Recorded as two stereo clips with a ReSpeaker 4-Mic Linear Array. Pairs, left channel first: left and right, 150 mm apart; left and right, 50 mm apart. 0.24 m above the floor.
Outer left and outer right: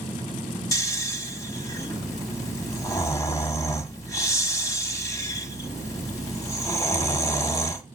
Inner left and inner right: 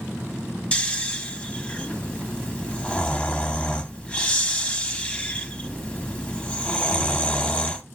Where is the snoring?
20° left (ahead or behind), 1.2 m.